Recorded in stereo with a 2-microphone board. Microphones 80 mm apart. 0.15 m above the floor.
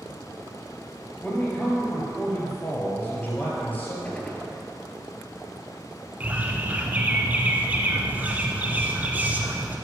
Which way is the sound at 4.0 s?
15° left (ahead or behind).